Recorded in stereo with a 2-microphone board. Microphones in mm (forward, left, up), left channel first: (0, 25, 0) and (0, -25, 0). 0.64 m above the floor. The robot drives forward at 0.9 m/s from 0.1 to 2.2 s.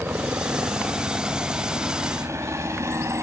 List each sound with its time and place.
0.0 s a helicopter: 50° right (ahead or behind); by 3.2 s 70° right (ahead or behind)